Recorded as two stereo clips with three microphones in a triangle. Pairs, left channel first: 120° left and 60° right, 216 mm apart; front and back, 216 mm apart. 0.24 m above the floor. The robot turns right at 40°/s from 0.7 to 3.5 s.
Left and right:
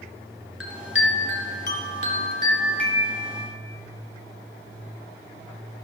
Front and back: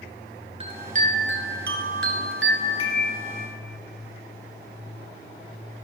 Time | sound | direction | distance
0.6 | a chime | 120° left | 1.5 m